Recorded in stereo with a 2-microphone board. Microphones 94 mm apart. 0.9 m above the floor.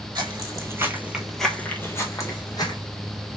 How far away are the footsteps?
About 1.3 m.